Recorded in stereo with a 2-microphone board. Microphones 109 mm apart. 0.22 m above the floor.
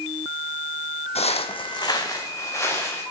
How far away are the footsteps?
About 0.6 m.